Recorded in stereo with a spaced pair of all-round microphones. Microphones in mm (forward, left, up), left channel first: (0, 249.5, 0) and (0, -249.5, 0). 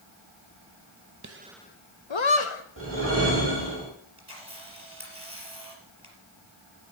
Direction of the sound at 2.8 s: 25° right (ahead or behind).